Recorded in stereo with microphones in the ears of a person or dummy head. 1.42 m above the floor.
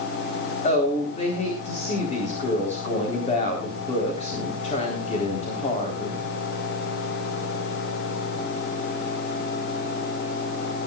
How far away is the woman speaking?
About 4 m.